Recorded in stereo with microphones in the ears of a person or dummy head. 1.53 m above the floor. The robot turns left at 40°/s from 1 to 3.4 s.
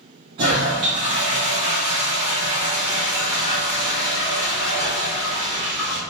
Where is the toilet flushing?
25° right (ahead or behind), 0.7 m; by 6.0 s 5° right (ahead or behind), 0.7 m.